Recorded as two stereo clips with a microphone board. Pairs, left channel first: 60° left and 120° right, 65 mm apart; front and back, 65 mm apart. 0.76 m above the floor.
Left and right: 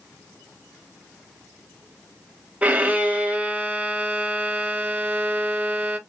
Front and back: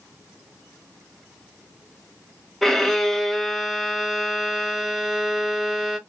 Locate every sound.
2.6 s a violin: 85° right, 0.6 m